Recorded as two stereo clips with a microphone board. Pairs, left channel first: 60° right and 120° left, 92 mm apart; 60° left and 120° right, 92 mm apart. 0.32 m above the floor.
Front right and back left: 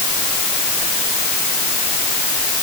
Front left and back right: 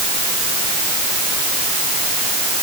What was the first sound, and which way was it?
Only background noise.